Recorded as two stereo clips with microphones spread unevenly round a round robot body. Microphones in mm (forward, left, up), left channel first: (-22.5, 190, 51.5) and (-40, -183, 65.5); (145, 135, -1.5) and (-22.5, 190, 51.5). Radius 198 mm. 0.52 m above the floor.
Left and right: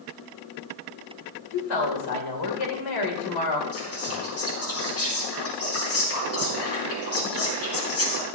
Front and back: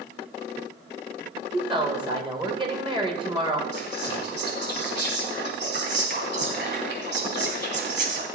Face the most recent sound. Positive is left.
turn(degrees=140)